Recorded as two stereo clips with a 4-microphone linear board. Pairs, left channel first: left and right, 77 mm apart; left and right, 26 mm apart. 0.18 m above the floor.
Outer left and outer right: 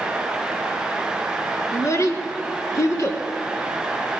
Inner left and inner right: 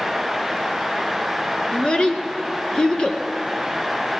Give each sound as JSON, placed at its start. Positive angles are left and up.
{"t": 1.7, "sound": "a child speaking", "side_deg": 40, "distance_m": 1.4}